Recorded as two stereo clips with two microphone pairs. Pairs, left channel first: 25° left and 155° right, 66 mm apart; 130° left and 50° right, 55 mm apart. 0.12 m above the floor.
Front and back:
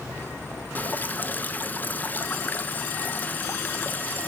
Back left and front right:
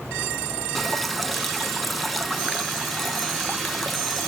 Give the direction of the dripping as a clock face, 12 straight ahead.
11 o'clock.